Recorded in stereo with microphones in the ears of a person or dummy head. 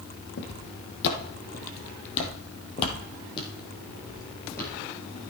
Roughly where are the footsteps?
Left.